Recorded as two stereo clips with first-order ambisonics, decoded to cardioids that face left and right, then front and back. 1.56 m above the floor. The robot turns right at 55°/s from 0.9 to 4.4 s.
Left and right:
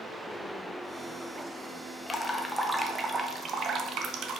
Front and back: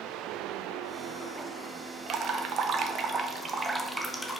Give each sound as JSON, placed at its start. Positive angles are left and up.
{"t": 2.1, "sound": "dripping", "azimuth_deg": 155, "distance_m": 0.6}